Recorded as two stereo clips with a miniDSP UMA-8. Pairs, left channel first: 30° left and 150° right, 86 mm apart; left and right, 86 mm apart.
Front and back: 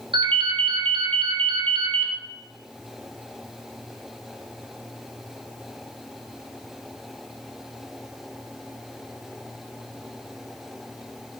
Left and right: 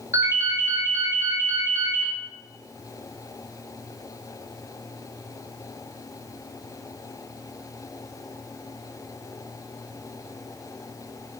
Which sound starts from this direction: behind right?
A ringtone, at 0.1 s.